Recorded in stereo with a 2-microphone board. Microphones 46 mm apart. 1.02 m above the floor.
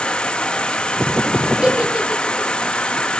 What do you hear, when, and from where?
0.0 s an insect: 20° left (ahead or behind), 1.2 m
1.6 s a giggle: 15° right (ahead or behind), 3.5 m